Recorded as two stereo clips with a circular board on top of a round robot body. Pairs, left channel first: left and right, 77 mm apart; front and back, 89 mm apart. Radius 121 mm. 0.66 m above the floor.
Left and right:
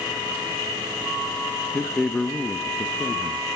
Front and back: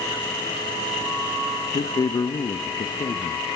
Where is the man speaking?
15° left, 0.9 m.